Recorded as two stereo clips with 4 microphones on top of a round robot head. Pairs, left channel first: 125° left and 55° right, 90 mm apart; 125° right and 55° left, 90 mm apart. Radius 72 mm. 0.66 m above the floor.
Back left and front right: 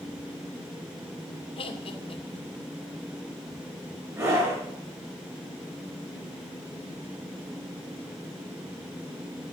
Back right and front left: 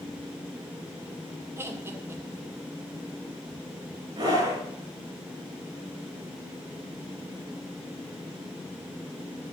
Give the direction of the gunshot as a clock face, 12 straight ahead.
I don't hear a gunshot.